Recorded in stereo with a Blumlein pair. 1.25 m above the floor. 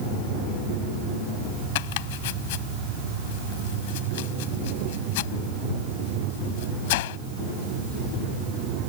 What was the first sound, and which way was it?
Chopping, 50° left.